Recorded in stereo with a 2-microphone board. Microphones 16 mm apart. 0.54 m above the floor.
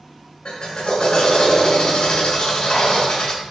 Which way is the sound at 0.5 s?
65° left (ahead or behind).